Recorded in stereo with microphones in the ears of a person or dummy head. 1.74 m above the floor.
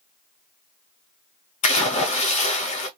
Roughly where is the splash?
Left.